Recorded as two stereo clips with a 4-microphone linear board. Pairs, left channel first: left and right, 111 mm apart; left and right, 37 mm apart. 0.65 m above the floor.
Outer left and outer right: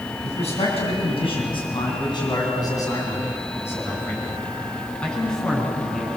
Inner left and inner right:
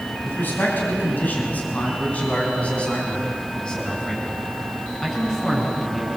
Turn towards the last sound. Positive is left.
turn(degrees=0)  # may be behind; listen again after turning